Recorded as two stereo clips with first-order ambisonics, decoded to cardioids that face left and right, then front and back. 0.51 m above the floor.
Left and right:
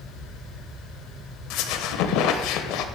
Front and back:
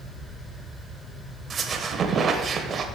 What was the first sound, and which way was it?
A squeak, 115° left.